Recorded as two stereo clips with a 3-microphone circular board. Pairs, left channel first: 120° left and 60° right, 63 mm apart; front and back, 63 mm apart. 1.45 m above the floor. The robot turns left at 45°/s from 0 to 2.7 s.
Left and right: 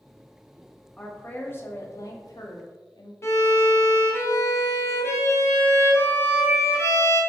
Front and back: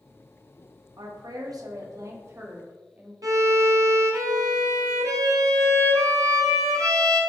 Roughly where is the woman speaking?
Behind.